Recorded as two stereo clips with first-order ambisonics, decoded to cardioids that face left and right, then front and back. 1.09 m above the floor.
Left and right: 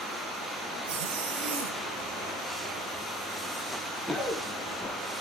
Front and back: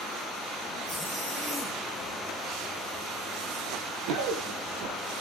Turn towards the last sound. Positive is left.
turn(degrees=165)